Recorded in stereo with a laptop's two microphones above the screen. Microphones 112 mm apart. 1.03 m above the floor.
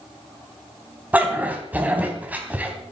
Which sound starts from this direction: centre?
A dog barking, at 1.1 s.